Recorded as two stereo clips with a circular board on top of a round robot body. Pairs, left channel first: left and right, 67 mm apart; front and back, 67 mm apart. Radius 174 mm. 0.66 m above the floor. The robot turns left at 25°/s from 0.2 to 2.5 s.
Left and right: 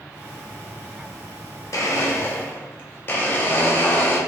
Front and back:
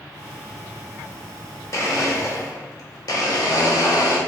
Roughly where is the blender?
Ahead left.